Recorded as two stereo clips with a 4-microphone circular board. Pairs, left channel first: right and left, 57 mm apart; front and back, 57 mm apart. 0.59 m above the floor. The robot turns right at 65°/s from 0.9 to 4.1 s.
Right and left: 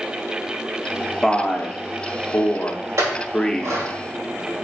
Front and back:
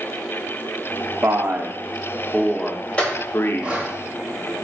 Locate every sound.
1.2 s a man speaking: 165° right, 0.7 m; by 3.8 s 5° left, 0.7 m
3.0 s a clink: 65° left, 2 m; by 3.9 s 125° left, 2 m